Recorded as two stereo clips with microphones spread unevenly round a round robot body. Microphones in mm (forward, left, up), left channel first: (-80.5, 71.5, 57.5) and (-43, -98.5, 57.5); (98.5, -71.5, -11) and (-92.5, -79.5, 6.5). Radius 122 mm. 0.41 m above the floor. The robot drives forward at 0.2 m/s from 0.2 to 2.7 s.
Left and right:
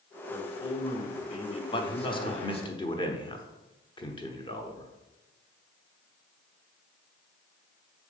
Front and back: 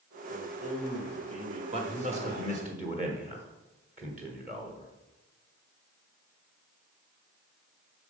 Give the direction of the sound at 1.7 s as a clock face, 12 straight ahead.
7 o'clock.